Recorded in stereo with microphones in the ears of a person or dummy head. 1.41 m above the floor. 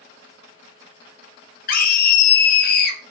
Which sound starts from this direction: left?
A scream, at 1.7 s.